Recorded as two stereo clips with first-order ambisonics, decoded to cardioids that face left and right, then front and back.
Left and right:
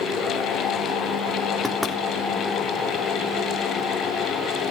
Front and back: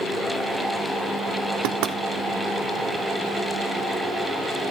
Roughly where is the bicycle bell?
No bicycle bell in this recording.